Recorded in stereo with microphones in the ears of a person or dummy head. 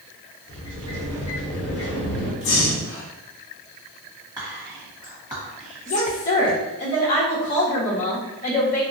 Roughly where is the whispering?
Centre.